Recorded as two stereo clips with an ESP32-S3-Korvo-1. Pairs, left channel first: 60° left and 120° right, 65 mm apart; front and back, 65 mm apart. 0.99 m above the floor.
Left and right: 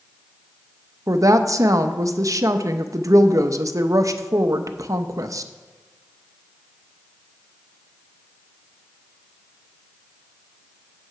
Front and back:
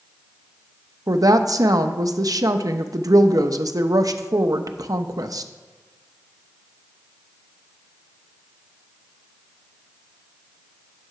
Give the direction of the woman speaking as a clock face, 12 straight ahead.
5 o'clock.